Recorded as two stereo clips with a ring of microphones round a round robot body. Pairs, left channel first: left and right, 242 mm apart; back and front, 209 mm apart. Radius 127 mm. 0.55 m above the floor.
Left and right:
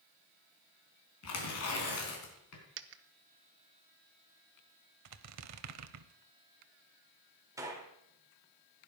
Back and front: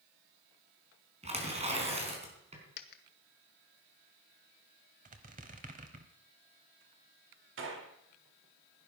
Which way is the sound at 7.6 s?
15° right.